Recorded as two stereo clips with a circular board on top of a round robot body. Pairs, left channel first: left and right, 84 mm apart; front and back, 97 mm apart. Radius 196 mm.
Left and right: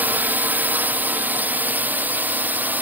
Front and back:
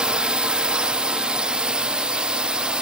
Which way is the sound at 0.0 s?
115° right.